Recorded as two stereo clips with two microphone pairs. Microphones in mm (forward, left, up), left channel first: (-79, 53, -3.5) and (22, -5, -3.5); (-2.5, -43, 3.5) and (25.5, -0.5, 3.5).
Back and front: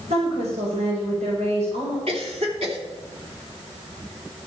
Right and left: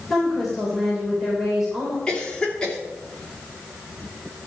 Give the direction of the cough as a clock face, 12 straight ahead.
2 o'clock.